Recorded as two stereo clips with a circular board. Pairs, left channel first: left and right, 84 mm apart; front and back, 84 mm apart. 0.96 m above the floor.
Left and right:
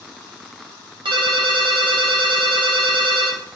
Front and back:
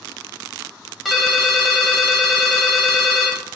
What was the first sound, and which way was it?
A ringtone, 90° right.